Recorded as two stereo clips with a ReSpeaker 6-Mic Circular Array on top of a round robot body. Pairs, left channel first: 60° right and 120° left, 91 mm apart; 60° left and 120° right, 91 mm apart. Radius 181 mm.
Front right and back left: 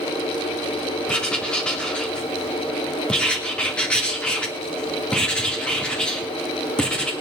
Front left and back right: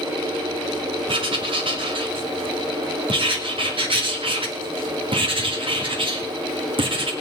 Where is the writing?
140° right, 2.5 m.